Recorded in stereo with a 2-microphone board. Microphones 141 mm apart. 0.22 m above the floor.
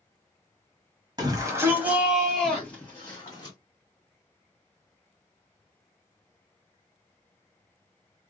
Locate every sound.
1.2 s a shout: 30° right (ahead or behind), 1.2 m; by 3.5 s 25° left (ahead or behind), 1.6 m